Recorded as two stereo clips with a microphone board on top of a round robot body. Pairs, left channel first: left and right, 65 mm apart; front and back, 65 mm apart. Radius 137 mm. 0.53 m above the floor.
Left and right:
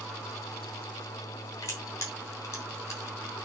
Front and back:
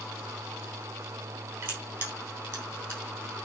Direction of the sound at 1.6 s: 130° left.